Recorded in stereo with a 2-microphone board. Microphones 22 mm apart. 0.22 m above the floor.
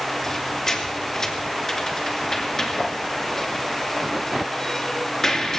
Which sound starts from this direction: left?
A squeak, at 0.2 s.